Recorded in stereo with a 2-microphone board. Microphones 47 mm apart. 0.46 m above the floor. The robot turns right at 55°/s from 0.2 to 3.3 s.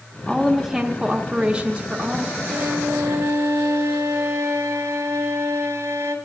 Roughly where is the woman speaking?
Centre.